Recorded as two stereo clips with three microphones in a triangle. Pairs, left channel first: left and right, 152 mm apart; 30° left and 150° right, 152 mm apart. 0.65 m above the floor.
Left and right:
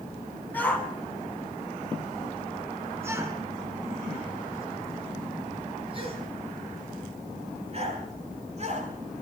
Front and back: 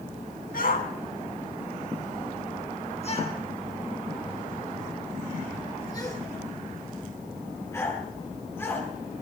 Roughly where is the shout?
Ahead.